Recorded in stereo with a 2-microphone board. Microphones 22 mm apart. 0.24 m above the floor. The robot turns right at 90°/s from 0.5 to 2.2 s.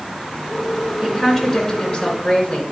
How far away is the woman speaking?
About 3 m.